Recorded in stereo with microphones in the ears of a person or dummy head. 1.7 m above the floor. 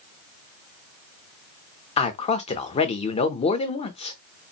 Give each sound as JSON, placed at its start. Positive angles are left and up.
{"t": 2.0, "sound": "a man speaking", "side_deg": 35, "distance_m": 0.7}